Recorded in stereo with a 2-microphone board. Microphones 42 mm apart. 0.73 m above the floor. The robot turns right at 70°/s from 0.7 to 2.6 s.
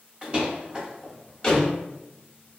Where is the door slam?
30° right (ahead or behind), 0.8 m; by 1.7 s 40° left (ahead or behind), 0.8 m.